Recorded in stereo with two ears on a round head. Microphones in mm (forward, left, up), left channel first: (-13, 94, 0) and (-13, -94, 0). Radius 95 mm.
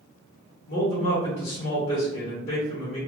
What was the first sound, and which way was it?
A man speaking, 50° left (ahead or behind).